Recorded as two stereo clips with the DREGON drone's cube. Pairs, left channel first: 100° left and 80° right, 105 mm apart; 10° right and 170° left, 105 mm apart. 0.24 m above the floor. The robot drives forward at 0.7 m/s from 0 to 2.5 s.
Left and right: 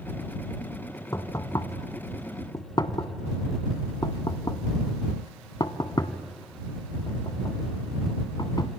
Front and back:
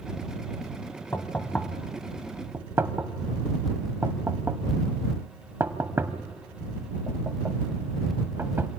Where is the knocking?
50° left, 1.4 m; by 8.7 s 110° left, 1.2 m.